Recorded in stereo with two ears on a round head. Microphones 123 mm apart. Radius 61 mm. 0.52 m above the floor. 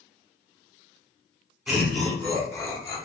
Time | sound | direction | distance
1.7 | laughter | 5° right (ahead or behind) | 1.0 m